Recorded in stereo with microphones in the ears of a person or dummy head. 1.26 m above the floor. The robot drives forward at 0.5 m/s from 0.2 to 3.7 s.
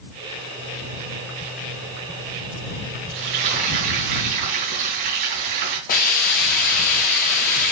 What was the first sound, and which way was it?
Frying, 55° right (ahead or behind).